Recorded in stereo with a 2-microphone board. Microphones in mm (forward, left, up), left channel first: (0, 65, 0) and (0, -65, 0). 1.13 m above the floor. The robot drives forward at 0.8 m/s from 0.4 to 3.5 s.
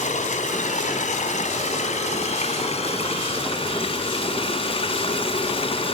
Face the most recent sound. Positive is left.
turn(degrees=45)  # may be behind; listen again after turning